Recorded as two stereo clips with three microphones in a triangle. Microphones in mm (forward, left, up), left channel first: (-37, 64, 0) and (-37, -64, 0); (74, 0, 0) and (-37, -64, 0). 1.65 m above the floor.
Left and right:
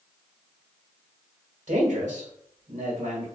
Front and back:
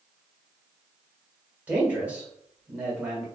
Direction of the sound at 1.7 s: 70° right.